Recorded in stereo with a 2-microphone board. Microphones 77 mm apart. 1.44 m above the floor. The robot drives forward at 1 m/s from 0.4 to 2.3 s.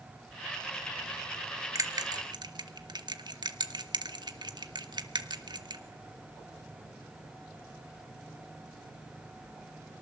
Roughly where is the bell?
Right.